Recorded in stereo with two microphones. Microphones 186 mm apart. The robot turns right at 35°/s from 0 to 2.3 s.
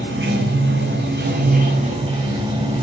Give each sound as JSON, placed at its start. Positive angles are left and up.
{"t": 0.0, "sound": "running water", "azimuth_deg": -110, "distance_m": 1.9}